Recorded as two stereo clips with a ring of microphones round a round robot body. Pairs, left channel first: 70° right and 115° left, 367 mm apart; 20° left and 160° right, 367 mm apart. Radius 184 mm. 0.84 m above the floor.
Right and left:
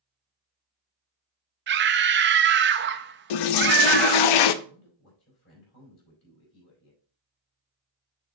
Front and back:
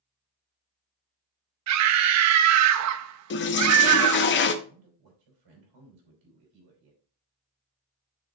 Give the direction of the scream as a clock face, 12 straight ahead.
6 o'clock.